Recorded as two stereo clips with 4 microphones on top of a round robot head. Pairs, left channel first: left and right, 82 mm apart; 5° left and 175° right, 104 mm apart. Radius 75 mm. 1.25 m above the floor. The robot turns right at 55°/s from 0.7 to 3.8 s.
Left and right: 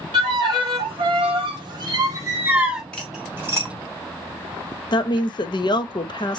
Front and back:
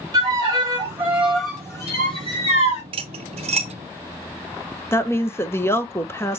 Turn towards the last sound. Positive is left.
turn(degrees=70)